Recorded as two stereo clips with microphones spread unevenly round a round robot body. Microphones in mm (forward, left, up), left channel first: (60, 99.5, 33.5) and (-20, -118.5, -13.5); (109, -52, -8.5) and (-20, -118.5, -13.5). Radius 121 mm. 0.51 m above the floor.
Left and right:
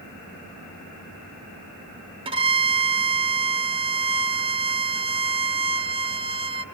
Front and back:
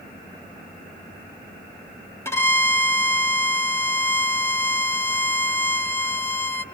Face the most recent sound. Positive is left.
turn(degrees=-45)